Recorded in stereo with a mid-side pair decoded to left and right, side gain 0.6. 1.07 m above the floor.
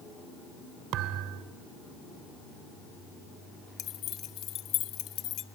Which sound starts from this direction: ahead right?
A thud, at 0.9 s.